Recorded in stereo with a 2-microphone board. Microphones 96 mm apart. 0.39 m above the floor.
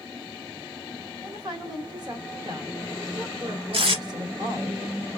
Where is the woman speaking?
45° right (ahead or behind), 1.2 m.